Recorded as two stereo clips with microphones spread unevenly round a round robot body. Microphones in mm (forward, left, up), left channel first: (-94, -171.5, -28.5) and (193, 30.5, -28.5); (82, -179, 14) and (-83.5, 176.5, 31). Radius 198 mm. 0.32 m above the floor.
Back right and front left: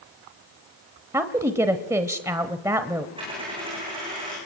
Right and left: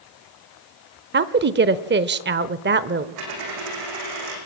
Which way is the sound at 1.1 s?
105° left.